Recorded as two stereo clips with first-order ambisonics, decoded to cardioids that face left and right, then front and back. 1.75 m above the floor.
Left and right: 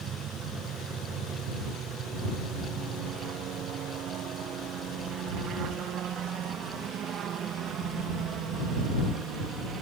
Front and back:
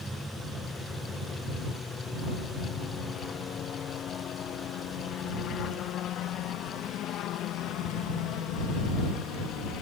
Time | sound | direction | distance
0.0 | a helicopter | 100° right | ?